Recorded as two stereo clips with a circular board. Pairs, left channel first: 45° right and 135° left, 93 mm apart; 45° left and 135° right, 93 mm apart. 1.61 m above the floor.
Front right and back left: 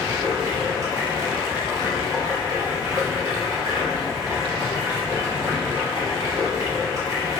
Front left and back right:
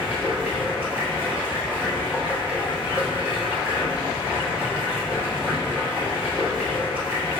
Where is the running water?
165° left, 1.3 m.